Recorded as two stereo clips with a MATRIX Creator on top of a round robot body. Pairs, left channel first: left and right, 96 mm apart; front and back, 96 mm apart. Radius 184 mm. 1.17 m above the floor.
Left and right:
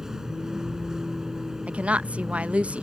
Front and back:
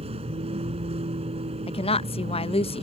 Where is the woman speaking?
15° right.